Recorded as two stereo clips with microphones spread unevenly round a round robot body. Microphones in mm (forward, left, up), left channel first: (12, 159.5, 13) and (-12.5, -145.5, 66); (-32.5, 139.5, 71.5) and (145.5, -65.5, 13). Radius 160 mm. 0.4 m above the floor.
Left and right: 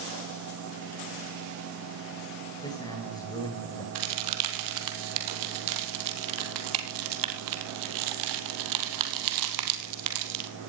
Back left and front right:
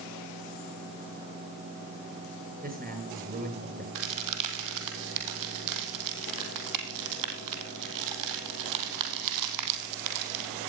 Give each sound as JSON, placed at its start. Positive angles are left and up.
{"t": 2.6, "sound": "a man speaking", "azimuth_deg": 10, "distance_m": 9.0}
{"t": 4.0, "sound": "a crack", "azimuth_deg": -70, "distance_m": 2.5}